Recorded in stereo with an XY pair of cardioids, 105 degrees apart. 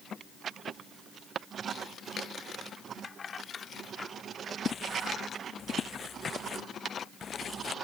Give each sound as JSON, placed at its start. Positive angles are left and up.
{"t": 3.0, "sound": "keys jangling", "azimuth_deg": 45}
{"t": 4.7, "sound": "footsteps", "azimuth_deg": 45}